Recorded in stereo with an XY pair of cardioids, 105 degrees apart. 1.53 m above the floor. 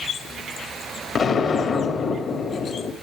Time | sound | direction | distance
1.1 | an explosion | 55° left | 2 m